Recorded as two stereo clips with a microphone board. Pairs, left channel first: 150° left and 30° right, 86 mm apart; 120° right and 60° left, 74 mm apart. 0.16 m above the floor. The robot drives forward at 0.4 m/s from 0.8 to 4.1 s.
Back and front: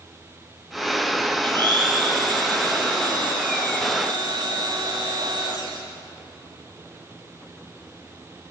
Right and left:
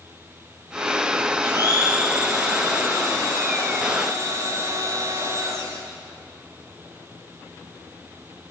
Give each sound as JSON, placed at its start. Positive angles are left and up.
{"t": 1.4, "sound": "a blender", "azimuth_deg": 10, "distance_m": 5.5}